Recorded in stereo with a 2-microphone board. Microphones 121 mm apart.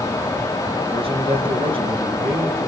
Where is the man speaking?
45° right (ahead or behind), 3.5 m.